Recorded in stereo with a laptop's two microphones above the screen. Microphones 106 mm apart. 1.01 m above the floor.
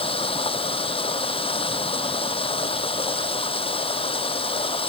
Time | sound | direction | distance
0.0 | running water | 60° left (ahead or behind) | ?